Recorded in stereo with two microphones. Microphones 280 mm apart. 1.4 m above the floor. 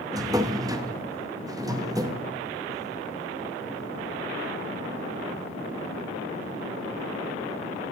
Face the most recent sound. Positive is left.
turn(degrees=-15)  # may be behind; listen again after turning